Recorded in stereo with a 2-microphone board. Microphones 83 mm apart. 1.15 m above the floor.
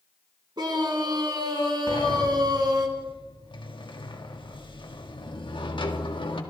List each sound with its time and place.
0.6 s a scream: 60° right (ahead or behind), 4 m
1.9 s a sliding door: 90° left, 1.8 m